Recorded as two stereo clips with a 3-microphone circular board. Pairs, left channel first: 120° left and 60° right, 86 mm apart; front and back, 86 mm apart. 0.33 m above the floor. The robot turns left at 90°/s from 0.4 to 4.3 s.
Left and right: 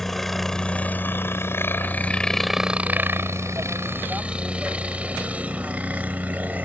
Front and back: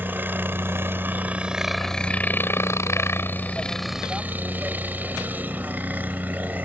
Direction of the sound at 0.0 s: 160° right.